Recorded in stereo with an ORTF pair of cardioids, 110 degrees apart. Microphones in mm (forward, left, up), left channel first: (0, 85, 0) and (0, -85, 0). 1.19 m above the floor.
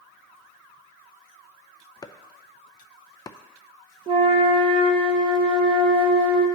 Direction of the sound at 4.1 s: 35° right.